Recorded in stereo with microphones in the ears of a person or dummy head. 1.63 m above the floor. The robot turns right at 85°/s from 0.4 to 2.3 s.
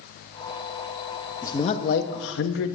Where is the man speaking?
20° left, 0.9 m; by 2.8 s 95° left, 0.9 m.